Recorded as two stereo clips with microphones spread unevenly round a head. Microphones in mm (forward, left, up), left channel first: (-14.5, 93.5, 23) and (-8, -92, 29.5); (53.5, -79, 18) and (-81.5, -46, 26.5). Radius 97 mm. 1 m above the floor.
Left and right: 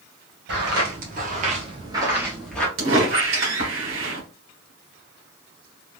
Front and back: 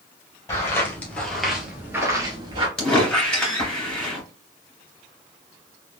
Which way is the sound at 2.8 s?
100° right.